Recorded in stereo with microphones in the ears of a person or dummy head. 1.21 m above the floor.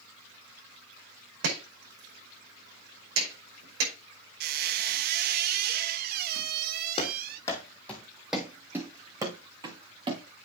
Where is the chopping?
85° right, 5.5 m.